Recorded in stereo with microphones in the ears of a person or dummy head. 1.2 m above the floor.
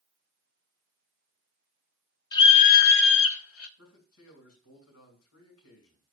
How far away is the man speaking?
About 5.5 m.